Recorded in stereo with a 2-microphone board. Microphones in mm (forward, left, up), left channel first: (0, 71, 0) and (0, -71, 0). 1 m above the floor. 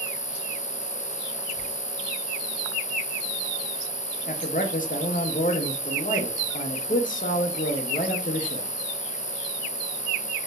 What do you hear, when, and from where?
0.0 s an insect: 75° right (ahead or behind), 0.8 m
1.5 s tearing paper: 50° left (ahead or behind), 1.6 m
4.3 s a man speaking: 70° left (ahead or behind), 0.9 m